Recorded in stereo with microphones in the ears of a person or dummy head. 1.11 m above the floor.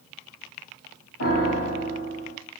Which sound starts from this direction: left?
A piano, at 1.2 s.